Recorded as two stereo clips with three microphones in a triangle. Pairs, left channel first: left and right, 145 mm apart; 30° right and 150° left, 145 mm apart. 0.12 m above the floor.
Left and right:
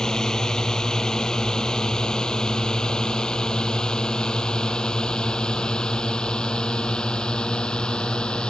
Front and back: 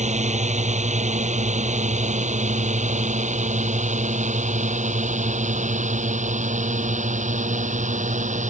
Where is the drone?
175° left.